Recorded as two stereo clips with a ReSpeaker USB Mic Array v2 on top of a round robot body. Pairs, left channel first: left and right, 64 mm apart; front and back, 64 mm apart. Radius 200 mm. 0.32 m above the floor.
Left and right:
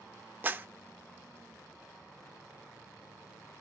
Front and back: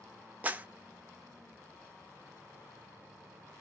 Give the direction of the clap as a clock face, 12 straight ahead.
4 o'clock.